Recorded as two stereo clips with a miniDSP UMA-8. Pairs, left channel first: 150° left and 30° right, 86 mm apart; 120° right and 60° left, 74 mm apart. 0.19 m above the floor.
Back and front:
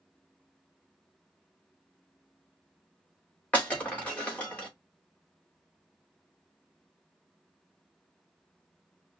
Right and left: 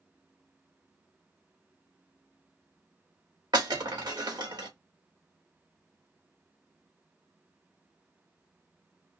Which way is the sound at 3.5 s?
75° left.